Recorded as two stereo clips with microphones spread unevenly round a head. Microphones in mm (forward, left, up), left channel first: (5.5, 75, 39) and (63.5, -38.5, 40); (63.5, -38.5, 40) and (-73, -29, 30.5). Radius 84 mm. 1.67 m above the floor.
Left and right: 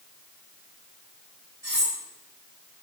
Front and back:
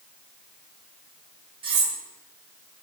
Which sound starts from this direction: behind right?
Cutlery clinking, at 1.6 s.